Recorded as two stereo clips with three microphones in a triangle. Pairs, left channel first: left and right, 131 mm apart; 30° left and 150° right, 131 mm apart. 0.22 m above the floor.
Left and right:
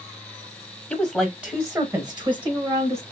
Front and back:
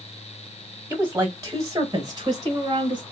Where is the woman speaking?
160° left, 1.2 m; by 3.0 s 110° right, 1.7 m.